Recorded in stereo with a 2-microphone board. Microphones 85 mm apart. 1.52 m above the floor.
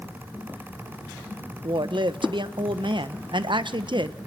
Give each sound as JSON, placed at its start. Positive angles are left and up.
{"t": 1.6, "sound": "a woman speaking", "side_deg": -65, "distance_m": 1.1}